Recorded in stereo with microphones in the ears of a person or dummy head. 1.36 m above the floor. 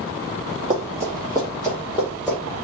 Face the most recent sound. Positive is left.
turn(degrees=0)  # may be behind; listen again after turning